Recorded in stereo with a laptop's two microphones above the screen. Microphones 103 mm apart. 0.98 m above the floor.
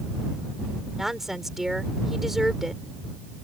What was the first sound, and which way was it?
A woman speaking, 5° right (ahead or behind).